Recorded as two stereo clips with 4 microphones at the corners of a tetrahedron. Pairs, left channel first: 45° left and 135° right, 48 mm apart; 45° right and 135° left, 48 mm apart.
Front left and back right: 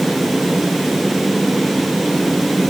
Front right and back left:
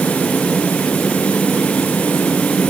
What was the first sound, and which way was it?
Only background noise.